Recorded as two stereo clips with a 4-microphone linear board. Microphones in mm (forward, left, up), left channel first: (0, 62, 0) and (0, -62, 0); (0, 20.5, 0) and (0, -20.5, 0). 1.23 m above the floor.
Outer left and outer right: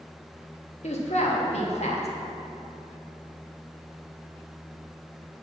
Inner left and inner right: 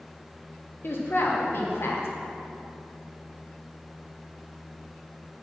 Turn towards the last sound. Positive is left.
turn(degrees=60)  # may be behind; listen again after turning